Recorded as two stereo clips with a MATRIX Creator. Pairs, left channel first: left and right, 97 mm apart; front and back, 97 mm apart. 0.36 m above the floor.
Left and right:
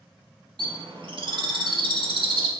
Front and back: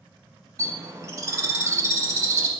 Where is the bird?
120° right, 0.6 m.